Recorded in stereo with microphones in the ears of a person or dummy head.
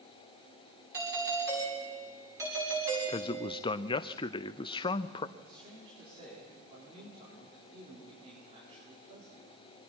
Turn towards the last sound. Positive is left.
turn(degrees=-40)  # may be behind; listen again after turning